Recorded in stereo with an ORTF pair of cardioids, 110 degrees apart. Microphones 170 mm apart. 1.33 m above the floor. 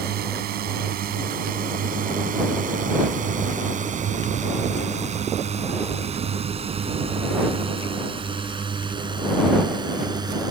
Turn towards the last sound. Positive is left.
turn(degrees=-25)